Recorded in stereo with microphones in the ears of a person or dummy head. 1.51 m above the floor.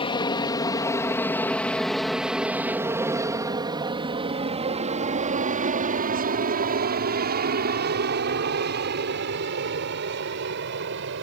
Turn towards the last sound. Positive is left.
turn(degrees=-65)  # may be behind; listen again after turning